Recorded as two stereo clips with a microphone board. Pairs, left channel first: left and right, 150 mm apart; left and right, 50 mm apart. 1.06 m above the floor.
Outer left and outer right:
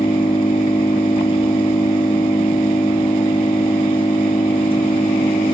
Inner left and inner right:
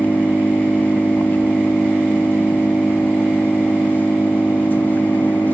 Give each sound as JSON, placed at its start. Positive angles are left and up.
{"t": 0.0, "sound": "an engine running", "side_deg": 35, "distance_m": 1.0}